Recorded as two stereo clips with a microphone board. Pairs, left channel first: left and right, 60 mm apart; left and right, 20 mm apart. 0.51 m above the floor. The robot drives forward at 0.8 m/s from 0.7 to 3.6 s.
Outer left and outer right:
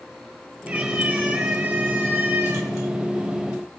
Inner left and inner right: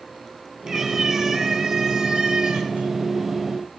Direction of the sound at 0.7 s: 20° right (ahead or behind).